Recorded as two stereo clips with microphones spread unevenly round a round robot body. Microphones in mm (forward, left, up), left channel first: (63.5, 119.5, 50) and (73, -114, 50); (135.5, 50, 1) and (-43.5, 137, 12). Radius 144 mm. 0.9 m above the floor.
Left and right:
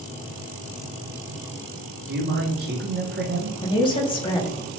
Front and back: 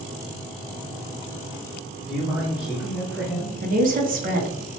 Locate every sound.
2.1 s a man speaking: 120° right, 0.7 m
3.6 s a woman speaking: 150° left, 0.6 m